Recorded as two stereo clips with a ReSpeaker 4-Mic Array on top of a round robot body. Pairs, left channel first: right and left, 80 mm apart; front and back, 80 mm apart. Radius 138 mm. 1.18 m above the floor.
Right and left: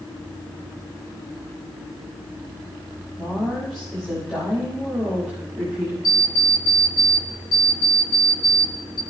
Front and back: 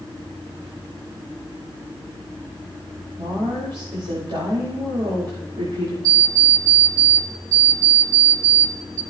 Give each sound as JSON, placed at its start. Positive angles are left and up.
{"t": 3.2, "sound": "a woman speaking", "azimuth_deg": 180, "distance_m": 5.0}
{"t": 6.0, "sound": "an alarm clock", "azimuth_deg": -135, "distance_m": 0.9}